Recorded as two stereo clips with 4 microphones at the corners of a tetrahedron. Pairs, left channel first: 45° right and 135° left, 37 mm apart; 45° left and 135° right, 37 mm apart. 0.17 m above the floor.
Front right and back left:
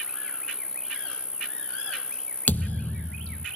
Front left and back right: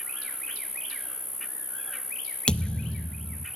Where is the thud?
15° right, 0.9 m.